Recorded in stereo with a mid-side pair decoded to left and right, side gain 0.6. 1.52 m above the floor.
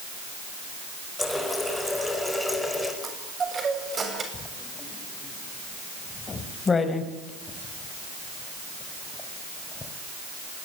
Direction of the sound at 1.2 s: 5° left.